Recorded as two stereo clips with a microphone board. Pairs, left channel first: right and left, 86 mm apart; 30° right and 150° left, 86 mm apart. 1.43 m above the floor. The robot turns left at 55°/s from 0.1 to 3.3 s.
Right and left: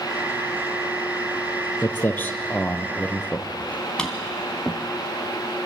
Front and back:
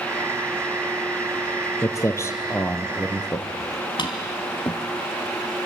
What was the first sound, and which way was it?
Footsteps, 35° right.